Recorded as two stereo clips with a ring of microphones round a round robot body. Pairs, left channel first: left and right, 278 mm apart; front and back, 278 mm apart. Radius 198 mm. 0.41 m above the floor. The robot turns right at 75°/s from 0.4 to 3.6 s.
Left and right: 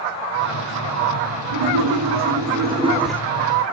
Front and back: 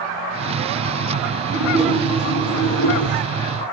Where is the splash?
120° right, 3 m; by 3.2 s 10° left, 3 m.